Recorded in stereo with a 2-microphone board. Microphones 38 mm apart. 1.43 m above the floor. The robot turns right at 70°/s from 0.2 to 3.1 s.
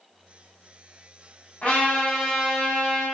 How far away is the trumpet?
About 1.7 m.